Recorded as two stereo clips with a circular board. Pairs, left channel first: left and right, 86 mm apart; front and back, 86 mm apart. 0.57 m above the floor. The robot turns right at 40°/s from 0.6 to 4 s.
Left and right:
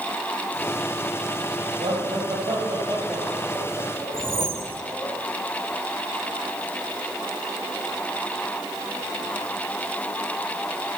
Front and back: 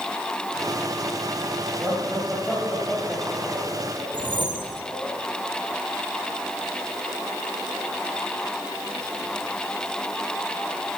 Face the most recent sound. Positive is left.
turn(degrees=-150)